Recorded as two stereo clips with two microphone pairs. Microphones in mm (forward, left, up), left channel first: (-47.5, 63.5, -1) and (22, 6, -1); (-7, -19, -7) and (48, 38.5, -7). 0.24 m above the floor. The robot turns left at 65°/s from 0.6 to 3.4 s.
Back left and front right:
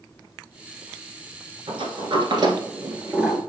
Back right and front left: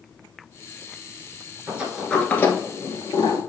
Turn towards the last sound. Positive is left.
turn(degrees=-135)